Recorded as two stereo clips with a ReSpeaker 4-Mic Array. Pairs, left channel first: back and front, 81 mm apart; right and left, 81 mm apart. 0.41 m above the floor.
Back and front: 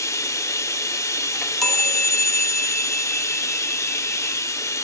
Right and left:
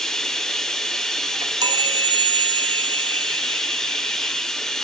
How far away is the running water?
About 0.9 m.